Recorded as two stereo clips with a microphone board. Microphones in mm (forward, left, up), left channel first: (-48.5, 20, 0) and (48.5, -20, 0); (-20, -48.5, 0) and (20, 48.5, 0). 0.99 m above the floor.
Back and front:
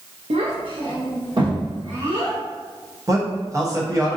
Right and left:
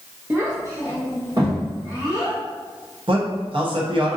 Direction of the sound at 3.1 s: 35° left.